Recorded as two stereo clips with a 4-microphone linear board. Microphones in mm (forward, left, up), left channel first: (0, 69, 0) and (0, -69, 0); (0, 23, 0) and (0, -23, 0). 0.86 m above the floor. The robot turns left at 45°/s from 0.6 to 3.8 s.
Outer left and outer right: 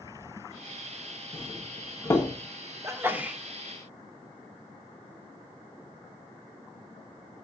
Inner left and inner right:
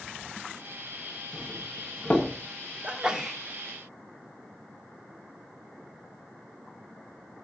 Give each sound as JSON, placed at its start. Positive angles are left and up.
{"t": 1.3, "sound": "a doorbell", "side_deg": 40, "distance_m": 1.2}
{"t": 2.8, "sound": "a sneeze", "side_deg": -25, "distance_m": 0.7}